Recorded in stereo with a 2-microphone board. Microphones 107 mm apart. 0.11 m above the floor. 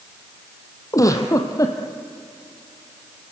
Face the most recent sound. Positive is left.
turn(degrees=30)  # may be behind; listen again after turning